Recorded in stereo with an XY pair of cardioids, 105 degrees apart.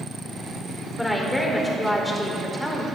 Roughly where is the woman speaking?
Ahead.